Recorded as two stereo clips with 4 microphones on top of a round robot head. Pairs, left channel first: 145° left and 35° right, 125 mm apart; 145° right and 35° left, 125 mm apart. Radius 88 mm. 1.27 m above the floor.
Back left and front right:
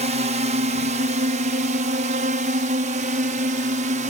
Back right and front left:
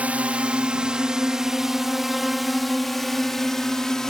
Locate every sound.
0.0 s a drone: 40° right; by 4.1 s 60° right